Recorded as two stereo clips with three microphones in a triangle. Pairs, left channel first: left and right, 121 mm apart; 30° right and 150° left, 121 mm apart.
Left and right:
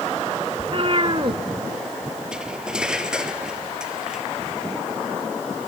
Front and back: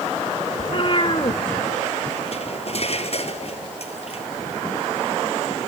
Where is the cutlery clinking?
5° right, 1.6 m.